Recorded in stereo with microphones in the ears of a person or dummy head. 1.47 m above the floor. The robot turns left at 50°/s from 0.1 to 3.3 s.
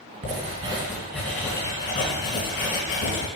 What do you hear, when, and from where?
0.2 s writing: 135° right, 2.5 m; by 3.3 s 70° left, 2.5 m